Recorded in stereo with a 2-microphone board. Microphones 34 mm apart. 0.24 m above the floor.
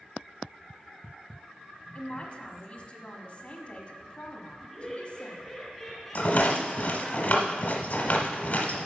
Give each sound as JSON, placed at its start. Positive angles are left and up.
{"t": 1.9, "sound": "a man speaking", "side_deg": 35, "distance_m": 1.3}
{"t": 4.6, "sound": "laughter", "side_deg": 5, "distance_m": 2.5}
{"t": 6.2, "sound": "a rattle", "side_deg": 50, "distance_m": 1.1}